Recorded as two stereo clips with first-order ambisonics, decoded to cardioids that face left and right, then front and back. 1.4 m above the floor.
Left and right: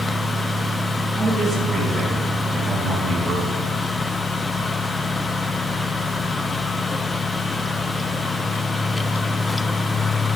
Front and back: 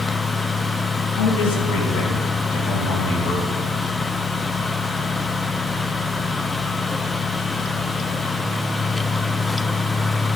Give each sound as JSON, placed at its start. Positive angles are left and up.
{"t": 1.1, "sound": "a man speaking", "azimuth_deg": 0, "distance_m": 2.5}